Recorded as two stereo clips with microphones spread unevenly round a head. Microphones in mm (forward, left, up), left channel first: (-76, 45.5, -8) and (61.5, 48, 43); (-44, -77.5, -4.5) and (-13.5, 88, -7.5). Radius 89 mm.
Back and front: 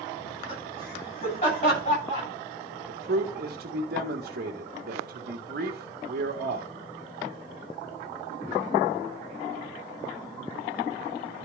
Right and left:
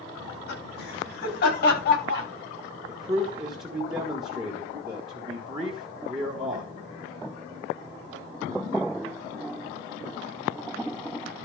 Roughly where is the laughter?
Behind right.